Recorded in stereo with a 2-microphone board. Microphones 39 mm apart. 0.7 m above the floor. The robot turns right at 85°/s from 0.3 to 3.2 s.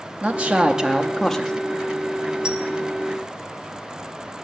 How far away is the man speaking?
About 0.5 m.